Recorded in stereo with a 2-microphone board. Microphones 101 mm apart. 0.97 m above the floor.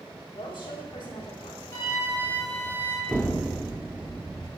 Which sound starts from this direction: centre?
An explosion, at 3.1 s.